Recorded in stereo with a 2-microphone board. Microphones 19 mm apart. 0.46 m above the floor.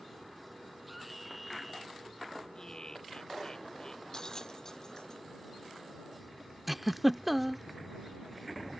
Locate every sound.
0.9 s a scream: 10° right (ahead or behind)
2.5 s laughter: 35° left (ahead or behind)
4.1 s a bell: 35° left (ahead or behind)
6.7 s a giggle: 10° right (ahead or behind)